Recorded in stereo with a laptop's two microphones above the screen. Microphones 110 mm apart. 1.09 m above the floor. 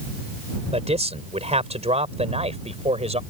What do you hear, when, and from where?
0.7 s a man speaking: 80° right